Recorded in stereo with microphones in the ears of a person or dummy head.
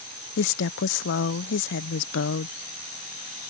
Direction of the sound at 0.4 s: 65° left (ahead or behind).